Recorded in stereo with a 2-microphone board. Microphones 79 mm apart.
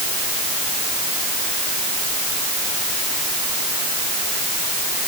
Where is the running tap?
No running tap in this recording.